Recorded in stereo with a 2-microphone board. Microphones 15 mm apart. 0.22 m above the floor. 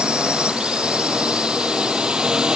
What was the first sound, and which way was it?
A drone, 80° right.